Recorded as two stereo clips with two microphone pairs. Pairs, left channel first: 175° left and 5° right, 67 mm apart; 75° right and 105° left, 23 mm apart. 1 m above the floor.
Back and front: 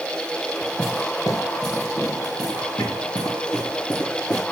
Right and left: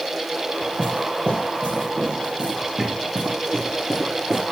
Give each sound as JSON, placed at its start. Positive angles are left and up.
{"t": 0.6, "sound": "footsteps", "azimuth_deg": 145, "distance_m": 5.5}